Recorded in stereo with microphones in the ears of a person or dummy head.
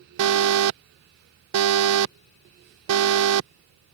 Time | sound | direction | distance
0.2 | an alarm | 75° right (ahead or behind) | ?